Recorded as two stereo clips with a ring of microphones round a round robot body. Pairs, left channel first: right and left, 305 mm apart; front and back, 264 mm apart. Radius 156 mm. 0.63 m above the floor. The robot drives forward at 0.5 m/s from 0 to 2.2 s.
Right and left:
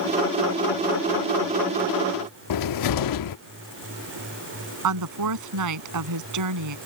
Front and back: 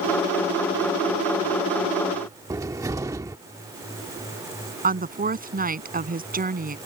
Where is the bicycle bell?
No bicycle bell in this recording.